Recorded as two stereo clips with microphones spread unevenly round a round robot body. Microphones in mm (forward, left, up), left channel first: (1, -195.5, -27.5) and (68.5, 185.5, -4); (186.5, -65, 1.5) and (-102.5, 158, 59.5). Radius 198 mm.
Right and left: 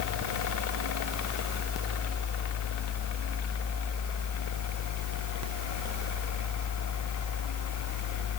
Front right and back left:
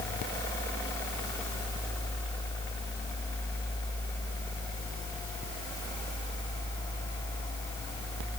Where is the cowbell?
No cowbell in this recording.